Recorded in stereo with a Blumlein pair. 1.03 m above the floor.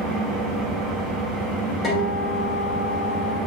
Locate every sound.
0.0 s an engine running: 10° right, 0.8 m
1.8 s a guitar: 5° left, 1.4 m